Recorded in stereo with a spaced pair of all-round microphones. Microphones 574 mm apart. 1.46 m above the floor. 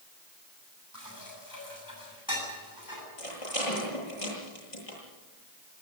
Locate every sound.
0.9 s dishes clattering: 35° left (ahead or behind), 7.5 m
3.2 s a rattle: 70° left (ahead or behind), 9 m